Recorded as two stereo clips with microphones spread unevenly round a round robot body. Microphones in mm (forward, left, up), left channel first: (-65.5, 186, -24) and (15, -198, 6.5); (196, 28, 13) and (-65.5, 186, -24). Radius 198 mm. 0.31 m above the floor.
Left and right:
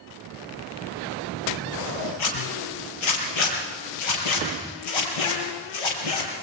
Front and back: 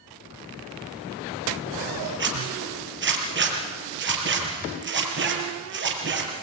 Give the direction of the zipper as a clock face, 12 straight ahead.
9 o'clock.